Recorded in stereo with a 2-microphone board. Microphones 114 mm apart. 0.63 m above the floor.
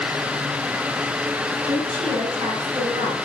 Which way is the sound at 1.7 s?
65° right (ahead or behind).